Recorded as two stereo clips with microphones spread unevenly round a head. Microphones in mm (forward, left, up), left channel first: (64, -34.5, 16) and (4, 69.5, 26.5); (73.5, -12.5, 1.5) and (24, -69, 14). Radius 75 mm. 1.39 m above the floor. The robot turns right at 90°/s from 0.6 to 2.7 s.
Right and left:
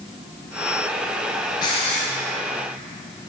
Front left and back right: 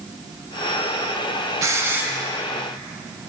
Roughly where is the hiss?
Behind right.